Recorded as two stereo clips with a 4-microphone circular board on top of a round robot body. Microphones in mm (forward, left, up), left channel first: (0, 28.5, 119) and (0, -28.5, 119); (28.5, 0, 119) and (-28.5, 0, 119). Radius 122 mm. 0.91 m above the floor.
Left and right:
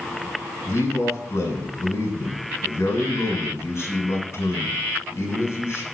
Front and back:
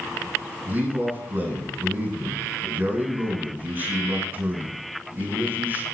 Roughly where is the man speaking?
Behind left.